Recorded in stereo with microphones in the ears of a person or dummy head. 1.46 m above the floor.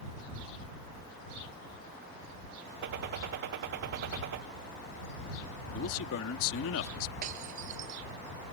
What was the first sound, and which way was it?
A gunshot, 50° right (ahead or behind).